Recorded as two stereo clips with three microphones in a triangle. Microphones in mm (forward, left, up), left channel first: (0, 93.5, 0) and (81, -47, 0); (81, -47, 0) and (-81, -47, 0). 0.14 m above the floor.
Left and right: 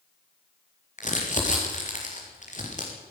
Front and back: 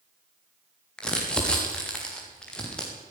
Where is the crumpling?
85° left, 6 m.